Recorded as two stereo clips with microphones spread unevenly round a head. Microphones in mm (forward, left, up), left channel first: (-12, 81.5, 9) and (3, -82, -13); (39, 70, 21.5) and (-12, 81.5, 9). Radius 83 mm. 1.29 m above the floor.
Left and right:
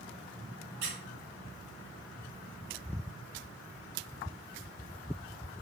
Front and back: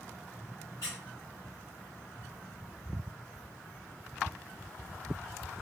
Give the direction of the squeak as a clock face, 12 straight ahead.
2 o'clock.